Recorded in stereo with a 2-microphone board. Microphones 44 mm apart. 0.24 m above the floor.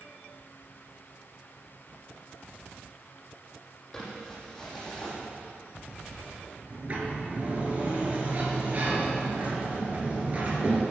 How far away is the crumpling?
About 6 m.